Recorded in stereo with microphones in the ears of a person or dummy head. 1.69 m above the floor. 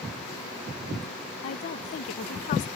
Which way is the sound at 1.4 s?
45° left (ahead or behind).